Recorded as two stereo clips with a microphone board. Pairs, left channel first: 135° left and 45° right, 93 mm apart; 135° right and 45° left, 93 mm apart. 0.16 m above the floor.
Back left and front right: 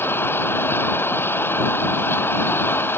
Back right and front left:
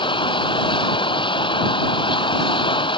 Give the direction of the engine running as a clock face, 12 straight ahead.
5 o'clock.